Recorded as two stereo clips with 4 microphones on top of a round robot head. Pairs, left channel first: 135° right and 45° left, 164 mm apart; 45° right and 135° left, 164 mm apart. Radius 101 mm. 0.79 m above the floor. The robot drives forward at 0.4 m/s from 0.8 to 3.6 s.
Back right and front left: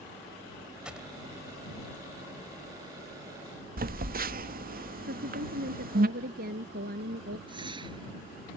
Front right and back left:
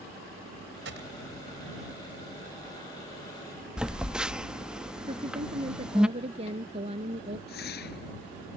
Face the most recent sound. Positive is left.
turn(degrees=-20)